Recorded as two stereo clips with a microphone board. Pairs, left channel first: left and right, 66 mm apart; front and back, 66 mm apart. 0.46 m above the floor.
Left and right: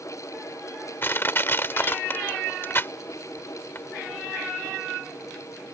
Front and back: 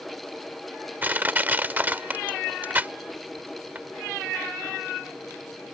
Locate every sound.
1.0 s crushing: 130° left